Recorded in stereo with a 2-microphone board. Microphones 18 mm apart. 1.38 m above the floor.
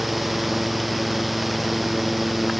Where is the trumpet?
I don't hear a trumpet.